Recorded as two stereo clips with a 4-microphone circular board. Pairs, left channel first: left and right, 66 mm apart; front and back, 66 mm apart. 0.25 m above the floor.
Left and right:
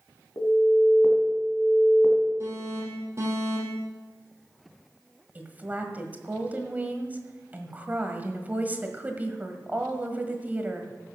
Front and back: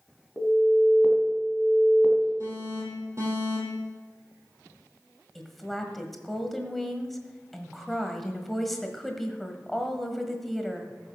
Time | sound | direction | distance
0.4 | an alarm | 110° left | 2 m
2.4 | an alarm | 135° right | 5.5 m
5.3 | a woman speaking | 85° right | 1.5 m